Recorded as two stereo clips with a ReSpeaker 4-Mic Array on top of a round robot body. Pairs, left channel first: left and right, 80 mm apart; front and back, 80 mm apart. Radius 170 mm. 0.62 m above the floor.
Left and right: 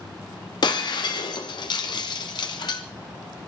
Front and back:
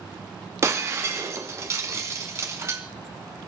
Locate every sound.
0.6 s breaking glass: 125° left, 1.6 m